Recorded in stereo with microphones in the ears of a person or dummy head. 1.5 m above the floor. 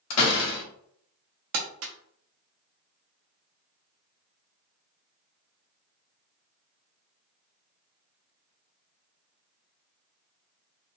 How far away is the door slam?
About 0.8 m.